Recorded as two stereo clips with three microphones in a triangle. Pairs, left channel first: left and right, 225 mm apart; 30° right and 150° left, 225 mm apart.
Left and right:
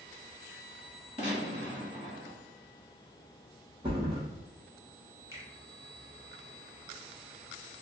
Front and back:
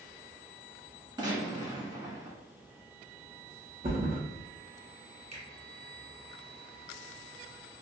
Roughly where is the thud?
Behind right.